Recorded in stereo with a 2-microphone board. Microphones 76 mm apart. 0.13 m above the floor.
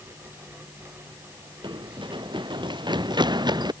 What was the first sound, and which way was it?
Running footsteps, 80° right.